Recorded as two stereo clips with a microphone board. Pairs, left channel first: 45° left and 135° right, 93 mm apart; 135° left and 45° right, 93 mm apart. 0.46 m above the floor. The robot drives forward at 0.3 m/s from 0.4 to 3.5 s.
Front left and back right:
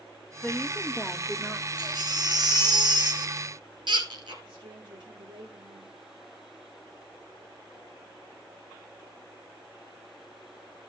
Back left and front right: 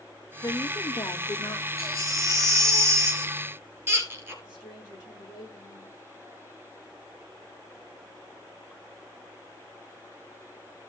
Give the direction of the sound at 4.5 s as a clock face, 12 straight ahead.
6 o'clock.